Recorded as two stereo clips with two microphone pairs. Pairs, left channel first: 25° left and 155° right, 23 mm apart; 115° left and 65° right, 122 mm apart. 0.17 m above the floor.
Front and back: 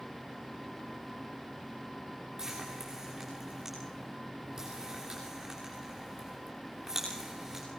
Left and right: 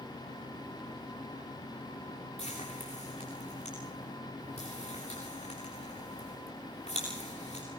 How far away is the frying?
About 8 m.